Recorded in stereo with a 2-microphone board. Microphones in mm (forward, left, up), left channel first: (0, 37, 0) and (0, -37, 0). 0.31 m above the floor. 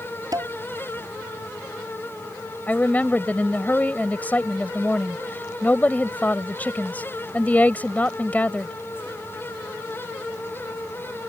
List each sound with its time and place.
0.3 s dishes clattering: 55° right (ahead or behind)
2.7 s a woman speaking: 25° left (ahead or behind)